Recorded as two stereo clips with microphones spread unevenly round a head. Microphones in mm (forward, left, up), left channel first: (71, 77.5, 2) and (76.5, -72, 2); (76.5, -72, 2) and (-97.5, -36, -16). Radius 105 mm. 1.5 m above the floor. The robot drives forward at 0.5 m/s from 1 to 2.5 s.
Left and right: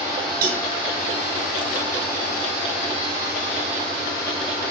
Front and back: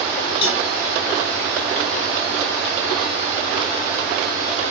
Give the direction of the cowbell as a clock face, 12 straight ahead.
2 o'clock.